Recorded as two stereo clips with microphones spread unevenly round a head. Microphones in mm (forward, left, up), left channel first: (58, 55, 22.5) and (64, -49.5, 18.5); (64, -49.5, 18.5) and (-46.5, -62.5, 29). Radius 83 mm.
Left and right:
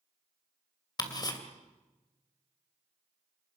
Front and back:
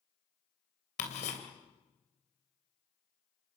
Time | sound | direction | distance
1.0 | ticking | 45° left | 3 m